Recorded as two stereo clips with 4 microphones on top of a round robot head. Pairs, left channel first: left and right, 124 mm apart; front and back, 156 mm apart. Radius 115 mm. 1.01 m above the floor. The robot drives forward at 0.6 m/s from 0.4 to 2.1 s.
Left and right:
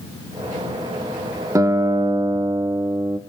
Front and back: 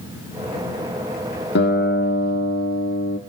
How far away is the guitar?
About 1.4 m.